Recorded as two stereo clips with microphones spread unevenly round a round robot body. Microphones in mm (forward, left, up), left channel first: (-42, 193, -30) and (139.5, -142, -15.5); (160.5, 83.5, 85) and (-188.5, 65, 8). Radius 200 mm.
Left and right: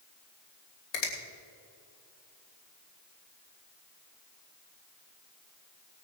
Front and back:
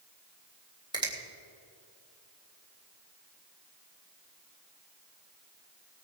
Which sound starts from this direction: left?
A finger snap, at 0.9 s.